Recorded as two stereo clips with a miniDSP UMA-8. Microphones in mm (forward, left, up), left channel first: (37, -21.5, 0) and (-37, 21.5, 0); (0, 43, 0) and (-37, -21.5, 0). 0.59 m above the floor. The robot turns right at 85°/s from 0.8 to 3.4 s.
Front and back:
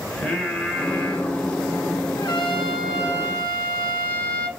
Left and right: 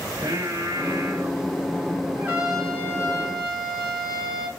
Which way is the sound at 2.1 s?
65° right.